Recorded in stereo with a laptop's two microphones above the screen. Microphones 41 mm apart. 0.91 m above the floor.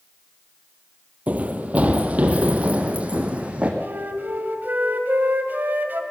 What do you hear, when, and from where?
1.3 s running footsteps: 35° right (ahead or behind), 1.7 m; by 3.7 s 30° right (ahead or behind), 3 m
3.8 s a flute: 50° right (ahead or behind), 1.8 m